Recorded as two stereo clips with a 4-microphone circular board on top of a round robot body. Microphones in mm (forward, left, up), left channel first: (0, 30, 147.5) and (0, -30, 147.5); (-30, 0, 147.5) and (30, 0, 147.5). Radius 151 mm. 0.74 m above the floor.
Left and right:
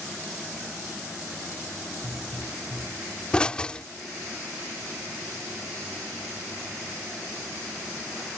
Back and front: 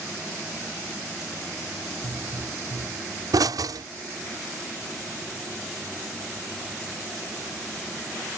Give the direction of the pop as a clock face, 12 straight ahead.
11 o'clock.